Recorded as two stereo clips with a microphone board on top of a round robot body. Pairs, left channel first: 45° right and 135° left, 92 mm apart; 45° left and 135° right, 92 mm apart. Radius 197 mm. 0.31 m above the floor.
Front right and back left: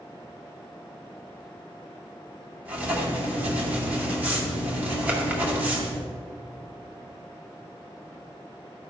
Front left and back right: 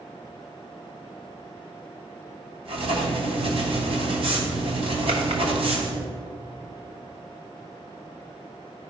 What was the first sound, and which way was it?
Writing, 150° right.